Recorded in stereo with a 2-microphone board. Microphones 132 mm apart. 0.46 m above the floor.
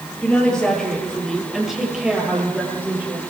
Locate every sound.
0.2 s a woman speaking: 10° left (ahead or behind), 9.5 m; by 3.2 s 15° right (ahead or behind), 11.5 m